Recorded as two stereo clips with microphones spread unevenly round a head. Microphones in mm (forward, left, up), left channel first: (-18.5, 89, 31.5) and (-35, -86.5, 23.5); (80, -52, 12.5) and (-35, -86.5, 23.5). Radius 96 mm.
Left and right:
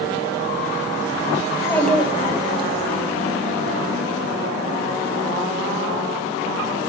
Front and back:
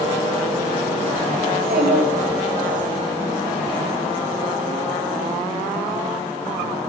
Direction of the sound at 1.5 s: 155° left.